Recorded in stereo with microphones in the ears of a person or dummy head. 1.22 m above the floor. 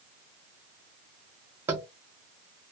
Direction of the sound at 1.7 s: 10° right (ahead or behind).